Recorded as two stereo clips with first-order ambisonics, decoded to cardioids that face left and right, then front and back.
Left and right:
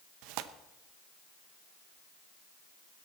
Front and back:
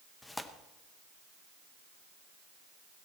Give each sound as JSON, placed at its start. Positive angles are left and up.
{"t": 0.2, "sound": "tearing paper", "azimuth_deg": -80, "distance_m": 0.8}